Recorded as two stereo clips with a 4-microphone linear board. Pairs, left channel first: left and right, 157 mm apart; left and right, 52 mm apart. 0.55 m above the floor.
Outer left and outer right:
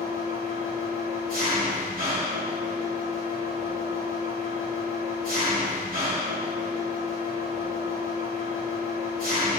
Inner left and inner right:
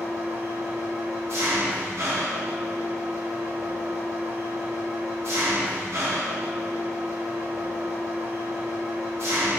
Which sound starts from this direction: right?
An engine running, at 0.0 s.